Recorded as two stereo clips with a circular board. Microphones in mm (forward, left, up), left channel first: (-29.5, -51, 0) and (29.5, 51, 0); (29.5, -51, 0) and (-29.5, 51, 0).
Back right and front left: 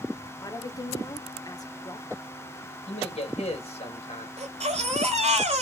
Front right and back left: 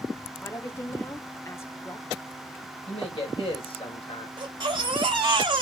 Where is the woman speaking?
110° right, 0.7 m.